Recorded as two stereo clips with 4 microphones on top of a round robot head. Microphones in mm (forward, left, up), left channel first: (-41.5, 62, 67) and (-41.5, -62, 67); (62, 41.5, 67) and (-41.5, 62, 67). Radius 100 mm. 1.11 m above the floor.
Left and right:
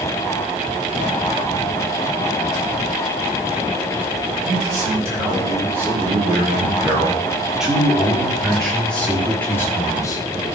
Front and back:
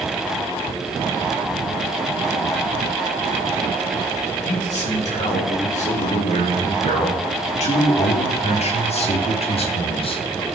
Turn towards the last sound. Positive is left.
turn(degrees=25)